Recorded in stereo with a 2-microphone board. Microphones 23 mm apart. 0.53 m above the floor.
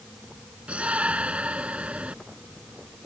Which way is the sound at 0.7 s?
60° right (ahead or behind).